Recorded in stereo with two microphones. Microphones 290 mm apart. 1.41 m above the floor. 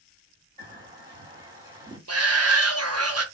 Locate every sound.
0.6 s a bird: 15° right (ahead or behind), 1.7 m
2.1 s a shout: 60° right (ahead or behind), 0.6 m